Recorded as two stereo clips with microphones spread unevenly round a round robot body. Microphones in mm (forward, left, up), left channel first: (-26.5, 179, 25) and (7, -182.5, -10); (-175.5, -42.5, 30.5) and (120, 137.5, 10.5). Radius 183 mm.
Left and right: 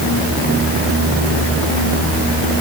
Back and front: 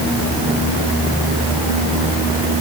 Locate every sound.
Only background noise.